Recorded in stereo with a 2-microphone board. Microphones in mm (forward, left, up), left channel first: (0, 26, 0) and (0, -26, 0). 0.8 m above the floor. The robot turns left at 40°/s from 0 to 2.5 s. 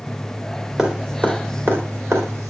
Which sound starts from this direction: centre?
Dripping, at 0.8 s.